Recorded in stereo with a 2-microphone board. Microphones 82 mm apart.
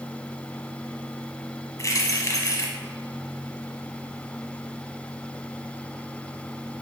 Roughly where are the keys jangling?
Left.